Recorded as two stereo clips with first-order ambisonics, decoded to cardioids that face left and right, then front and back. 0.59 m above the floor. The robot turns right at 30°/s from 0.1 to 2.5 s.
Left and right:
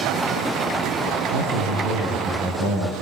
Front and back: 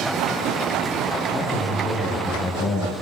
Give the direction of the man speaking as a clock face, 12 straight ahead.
3 o'clock.